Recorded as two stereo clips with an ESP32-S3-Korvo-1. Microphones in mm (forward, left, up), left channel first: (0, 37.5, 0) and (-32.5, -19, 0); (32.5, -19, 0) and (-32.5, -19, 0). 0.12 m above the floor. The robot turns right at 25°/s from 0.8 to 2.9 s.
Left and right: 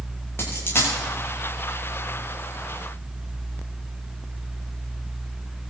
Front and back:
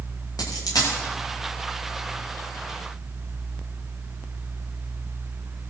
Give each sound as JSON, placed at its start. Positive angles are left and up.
{"t": 0.4, "sound": "a dropped coin", "azimuth_deg": 10, "distance_m": 7.5}